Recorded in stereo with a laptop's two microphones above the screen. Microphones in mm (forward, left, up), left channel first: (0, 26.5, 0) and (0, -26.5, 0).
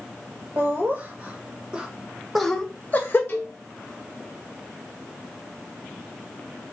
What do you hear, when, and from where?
0.6 s laughter: 40° right (ahead or behind), 1.4 m; by 3.2 s 40° left (ahead or behind), 0.7 m
3.3 s a cowbell: 45° left (ahead or behind), 0.8 m